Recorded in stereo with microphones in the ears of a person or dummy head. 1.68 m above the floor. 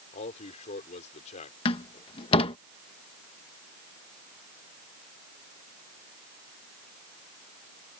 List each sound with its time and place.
0.1 s a man speaking: 35° left (ahead or behind)
1.6 s a door slam: 30° left (ahead or behind)